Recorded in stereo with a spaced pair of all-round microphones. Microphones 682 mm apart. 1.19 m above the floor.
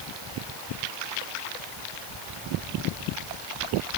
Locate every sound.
Only background noise.